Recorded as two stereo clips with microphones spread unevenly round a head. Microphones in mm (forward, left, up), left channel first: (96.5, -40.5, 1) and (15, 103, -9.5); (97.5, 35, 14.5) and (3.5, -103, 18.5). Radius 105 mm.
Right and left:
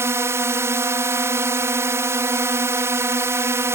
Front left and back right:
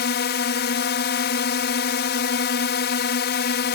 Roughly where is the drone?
Ahead left.